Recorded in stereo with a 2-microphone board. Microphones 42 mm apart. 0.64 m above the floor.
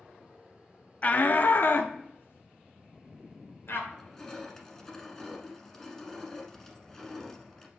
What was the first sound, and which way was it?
A shout, 40° left (ahead or behind).